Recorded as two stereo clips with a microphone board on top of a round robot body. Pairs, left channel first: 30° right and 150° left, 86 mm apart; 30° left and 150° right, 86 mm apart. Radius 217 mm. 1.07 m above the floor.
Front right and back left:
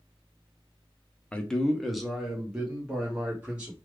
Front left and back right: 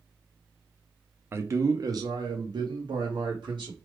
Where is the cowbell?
I don't hear a cowbell.